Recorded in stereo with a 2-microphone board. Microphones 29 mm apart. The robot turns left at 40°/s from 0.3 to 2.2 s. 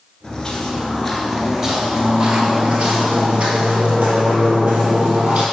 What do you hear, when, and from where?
0.2 s footsteps: 25° left (ahead or behind), 1.4 m; by 5.4 s 65° right (ahead or behind), 3 m